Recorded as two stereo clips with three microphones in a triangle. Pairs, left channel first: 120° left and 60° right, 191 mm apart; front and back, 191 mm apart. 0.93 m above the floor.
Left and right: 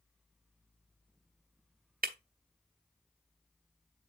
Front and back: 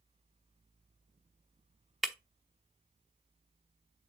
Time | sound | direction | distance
2.0 | breaking glass | 90° right | 0.9 m